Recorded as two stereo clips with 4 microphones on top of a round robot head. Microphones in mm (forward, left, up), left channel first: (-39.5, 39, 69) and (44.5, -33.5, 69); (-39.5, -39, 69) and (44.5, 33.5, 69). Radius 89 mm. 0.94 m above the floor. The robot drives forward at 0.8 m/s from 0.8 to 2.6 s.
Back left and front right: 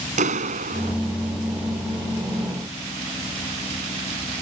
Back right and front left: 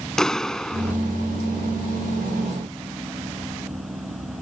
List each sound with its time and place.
0.2 s a clap: 55° right